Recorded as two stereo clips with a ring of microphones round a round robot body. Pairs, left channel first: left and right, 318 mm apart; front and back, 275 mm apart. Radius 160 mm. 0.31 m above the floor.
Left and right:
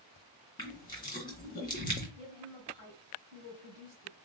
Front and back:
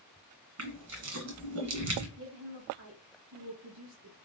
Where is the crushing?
165° left, 2.0 m.